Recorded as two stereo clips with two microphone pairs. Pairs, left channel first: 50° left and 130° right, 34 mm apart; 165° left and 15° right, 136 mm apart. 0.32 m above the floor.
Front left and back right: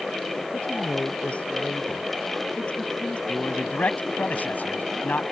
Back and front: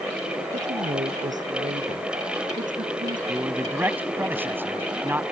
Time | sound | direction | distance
0.5 | a woman speaking | 5° left | ?
3.3 | a man speaking | 60° left | ?